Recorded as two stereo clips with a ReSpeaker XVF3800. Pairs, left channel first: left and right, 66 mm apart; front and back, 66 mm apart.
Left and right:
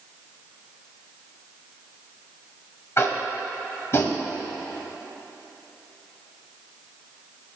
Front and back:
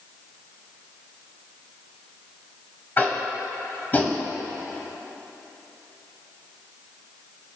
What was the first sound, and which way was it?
Tapping, 55° left.